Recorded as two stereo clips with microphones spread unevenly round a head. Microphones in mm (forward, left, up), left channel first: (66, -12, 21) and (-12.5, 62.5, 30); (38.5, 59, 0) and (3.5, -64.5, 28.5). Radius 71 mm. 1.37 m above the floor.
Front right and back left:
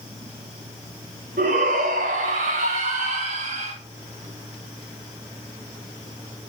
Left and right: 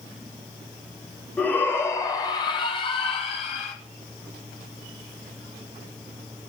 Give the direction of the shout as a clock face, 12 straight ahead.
7 o'clock.